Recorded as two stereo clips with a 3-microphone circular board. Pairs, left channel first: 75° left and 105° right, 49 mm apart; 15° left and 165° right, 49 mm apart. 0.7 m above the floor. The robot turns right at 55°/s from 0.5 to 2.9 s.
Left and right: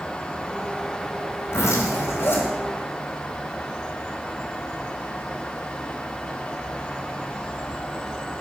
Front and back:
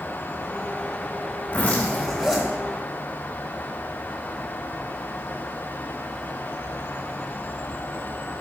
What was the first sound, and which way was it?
A zipper, 70° left.